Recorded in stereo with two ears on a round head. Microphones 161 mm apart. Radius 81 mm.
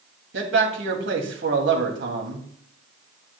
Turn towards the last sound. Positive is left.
turn(degrees=-65)  # may be behind; listen again after turning